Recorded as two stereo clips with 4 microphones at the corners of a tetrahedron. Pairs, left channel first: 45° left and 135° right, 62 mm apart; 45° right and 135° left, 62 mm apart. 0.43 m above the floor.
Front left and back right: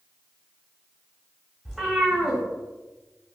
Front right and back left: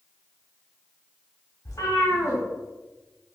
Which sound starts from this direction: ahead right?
A cat meowing, at 1.6 s.